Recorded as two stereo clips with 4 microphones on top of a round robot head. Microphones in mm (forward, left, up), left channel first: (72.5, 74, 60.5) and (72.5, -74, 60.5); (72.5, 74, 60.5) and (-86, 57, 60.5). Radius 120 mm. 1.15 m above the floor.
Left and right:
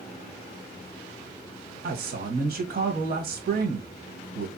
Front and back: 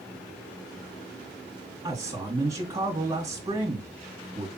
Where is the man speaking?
100° right, 1.5 m.